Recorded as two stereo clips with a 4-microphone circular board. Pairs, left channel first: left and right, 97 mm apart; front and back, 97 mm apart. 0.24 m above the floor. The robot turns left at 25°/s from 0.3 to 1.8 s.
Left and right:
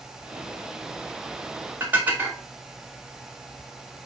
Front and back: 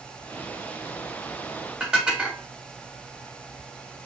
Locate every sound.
1.8 s dishes clattering: 115° right, 0.7 m